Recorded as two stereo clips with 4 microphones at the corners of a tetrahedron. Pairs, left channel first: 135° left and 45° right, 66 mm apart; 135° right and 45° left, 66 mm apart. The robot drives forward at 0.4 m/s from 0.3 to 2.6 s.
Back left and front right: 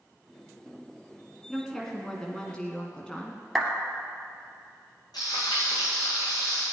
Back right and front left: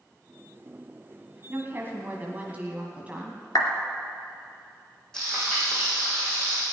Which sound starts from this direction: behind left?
Frying, at 5.1 s.